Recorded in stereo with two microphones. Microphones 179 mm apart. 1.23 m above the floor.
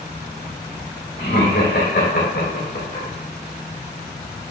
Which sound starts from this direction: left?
Laughter, at 1.2 s.